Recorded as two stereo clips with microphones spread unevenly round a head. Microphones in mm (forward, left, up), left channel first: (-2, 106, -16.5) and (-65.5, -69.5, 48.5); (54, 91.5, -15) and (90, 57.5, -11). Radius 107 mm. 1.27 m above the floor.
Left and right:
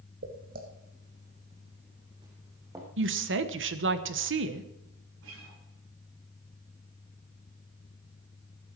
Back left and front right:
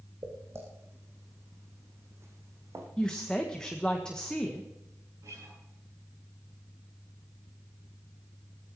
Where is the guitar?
80° right, 8.5 m.